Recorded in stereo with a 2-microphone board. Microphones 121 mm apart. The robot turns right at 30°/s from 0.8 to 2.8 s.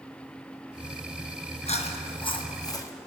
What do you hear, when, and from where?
1.7 s chewing: 115° left, 1.0 m; by 2.9 s 150° left, 1.0 m